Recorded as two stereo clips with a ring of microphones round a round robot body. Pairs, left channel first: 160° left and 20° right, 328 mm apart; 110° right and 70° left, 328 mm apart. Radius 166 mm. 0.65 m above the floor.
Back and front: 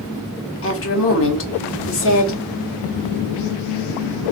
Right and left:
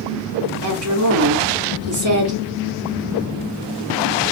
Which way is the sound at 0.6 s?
110° left.